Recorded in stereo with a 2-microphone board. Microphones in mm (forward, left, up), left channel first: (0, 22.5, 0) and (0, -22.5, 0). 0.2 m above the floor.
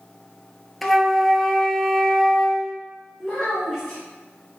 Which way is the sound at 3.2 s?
10° left (ahead or behind).